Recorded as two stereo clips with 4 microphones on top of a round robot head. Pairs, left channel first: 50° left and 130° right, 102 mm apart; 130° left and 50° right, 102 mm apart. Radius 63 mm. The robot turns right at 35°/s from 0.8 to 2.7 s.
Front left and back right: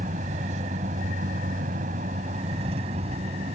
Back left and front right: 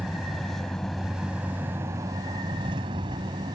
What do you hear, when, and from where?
0.0 s a vehicle: 140° right; by 3.6 s 105° right